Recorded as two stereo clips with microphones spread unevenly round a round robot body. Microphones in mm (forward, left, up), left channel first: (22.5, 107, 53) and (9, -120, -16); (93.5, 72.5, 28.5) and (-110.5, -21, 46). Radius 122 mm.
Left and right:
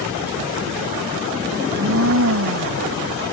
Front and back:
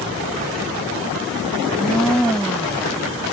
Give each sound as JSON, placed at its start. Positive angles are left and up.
{"t": 1.6, "sound": "a blender", "azimuth_deg": -65}